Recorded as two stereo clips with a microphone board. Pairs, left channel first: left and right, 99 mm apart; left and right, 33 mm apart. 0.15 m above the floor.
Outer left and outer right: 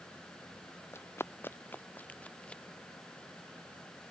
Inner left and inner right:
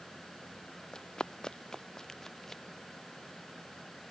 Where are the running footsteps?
25° left (ahead or behind); by 2.6 s 10° left (ahead or behind).